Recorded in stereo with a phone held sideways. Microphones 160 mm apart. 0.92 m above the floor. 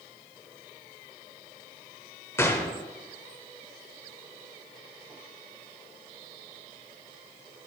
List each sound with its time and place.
2.4 s a gunshot: 15° left (ahead or behind), 0.9 m